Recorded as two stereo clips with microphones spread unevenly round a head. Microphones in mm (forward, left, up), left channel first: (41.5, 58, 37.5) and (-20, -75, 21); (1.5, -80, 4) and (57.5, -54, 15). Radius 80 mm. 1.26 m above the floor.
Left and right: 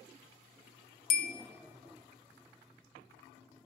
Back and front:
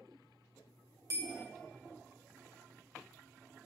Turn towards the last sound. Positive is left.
turn(degrees=100)